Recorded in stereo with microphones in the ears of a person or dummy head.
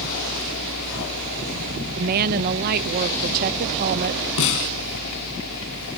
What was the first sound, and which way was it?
A fan, 70° left (ahead or behind).